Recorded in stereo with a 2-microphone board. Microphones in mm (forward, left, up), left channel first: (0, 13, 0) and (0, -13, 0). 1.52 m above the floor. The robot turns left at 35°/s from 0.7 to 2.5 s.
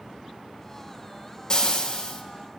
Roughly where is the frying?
Left.